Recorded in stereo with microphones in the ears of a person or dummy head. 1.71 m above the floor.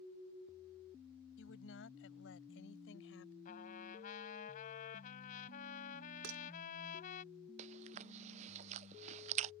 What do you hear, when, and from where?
1.4 s a woman speaking: 75° left (ahead or behind)
3.5 s a trumpet: 50° left (ahead or behind)
6.2 s dishes clattering: 70° right (ahead or behind)
7.6 s chewing: 40° right (ahead or behind)